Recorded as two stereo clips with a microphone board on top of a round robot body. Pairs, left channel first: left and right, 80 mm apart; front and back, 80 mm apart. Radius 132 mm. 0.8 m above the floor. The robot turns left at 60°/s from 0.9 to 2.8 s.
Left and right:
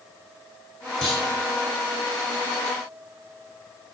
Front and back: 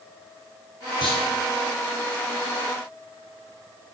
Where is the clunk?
Straight ahead, 3 m; by 1.2 s 10° right, 3 m.